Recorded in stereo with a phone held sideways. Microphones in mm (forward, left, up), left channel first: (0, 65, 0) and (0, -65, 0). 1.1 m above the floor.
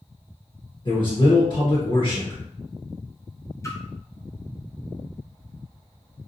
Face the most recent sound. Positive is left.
turn(degrees=20)  # may be behind; listen again after turning